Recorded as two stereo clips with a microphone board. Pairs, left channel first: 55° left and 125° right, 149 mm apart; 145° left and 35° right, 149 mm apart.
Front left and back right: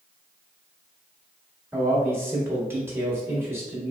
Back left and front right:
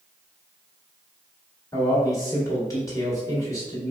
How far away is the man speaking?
About 1.2 m.